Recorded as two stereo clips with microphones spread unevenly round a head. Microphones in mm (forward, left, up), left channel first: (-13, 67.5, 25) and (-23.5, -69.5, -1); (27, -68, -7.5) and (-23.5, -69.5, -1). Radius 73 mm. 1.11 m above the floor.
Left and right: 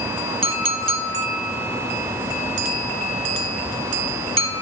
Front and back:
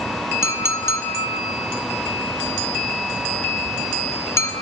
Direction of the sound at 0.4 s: 35° right.